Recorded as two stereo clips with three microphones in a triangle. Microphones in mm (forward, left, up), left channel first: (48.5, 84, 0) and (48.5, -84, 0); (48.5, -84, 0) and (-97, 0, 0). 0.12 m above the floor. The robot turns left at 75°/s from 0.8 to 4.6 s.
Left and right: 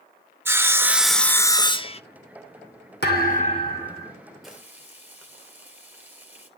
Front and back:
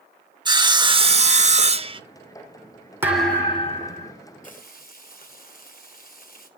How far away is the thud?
About 3 m.